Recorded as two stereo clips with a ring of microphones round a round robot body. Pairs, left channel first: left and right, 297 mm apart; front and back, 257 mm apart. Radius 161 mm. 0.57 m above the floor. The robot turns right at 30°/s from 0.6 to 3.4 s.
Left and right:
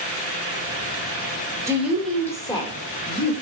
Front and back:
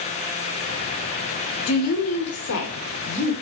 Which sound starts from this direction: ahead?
A woman speaking, at 1.7 s.